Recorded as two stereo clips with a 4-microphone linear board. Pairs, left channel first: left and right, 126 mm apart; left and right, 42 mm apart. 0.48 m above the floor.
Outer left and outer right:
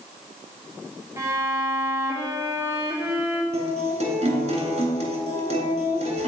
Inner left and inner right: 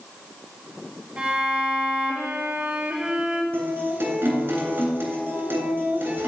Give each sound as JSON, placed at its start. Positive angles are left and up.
{"t": 1.2, "sound": "a violin", "side_deg": -25, "distance_m": 1.4}
{"t": 3.5, "sound": "a guitar", "side_deg": -60, "distance_m": 2.5}